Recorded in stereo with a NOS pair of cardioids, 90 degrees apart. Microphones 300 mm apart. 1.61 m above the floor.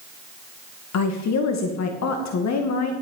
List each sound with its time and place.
0.9 s a woman speaking: 65° left, 2 m